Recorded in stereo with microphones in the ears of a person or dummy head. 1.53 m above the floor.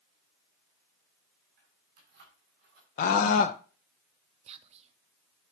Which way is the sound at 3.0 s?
50° left (ahead or behind).